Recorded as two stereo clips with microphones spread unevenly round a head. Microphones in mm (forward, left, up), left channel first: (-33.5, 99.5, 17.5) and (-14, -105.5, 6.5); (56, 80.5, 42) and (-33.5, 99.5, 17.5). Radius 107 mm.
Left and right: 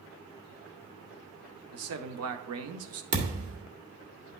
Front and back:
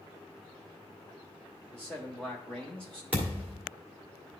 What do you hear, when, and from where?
1.7 s a man speaking: 90° right, 0.9 m
3.1 s a thud: 95° right, 1.5 m